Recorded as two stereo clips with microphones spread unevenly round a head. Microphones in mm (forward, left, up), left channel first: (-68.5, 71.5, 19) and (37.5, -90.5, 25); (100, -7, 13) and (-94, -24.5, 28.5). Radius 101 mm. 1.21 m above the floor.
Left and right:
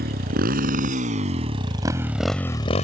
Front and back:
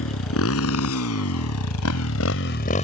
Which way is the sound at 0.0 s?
10° right.